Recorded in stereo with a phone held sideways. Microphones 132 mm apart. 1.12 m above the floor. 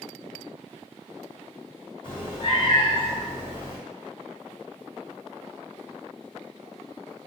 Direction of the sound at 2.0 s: 40° left (ahead or behind).